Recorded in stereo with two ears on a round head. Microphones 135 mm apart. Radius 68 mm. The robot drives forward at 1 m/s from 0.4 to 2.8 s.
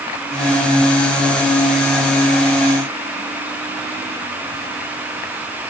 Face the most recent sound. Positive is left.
No sound to turn to.